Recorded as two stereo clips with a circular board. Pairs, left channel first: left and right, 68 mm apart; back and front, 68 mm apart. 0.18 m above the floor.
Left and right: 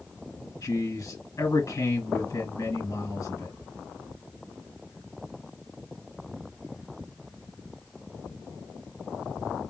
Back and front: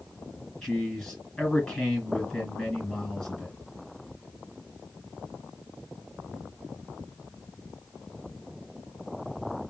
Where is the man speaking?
100° left, 2.5 m.